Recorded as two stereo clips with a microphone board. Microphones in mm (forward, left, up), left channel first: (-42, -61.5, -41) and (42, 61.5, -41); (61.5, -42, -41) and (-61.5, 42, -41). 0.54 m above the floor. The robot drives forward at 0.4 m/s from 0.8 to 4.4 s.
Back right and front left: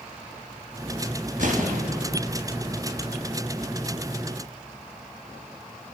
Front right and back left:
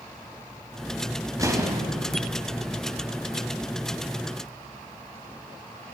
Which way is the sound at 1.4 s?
80° left.